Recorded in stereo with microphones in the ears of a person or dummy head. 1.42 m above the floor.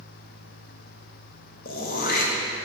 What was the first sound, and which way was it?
Throat clearing, 40° left (ahead or behind).